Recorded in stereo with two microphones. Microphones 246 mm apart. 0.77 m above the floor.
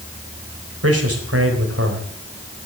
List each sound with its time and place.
0.8 s a man speaking: 70° right (ahead or behind), 4 m